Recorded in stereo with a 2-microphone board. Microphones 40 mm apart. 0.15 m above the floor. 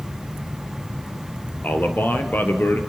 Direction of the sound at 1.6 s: 55° left (ahead or behind).